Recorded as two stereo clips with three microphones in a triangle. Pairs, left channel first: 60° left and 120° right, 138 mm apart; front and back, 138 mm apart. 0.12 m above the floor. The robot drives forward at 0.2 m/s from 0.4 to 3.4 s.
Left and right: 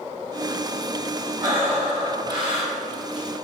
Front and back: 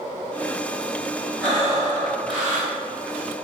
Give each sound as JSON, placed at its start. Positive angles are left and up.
{"t": 1.4, "sound": "breathing", "azimuth_deg": -80, "distance_m": 1.5}